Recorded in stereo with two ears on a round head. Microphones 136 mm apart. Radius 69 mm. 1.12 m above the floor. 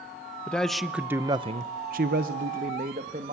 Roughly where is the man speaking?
Centre.